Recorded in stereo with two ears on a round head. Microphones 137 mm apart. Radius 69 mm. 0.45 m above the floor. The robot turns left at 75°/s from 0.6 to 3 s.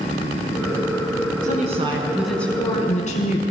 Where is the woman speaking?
115° right, 5 m; by 3.4 s 125° left, 5 m.